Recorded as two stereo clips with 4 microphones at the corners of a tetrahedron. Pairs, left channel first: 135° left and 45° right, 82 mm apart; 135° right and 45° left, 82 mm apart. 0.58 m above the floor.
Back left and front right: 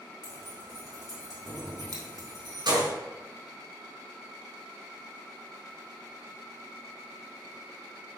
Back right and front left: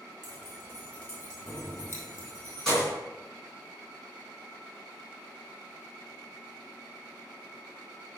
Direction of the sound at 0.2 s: 75° right.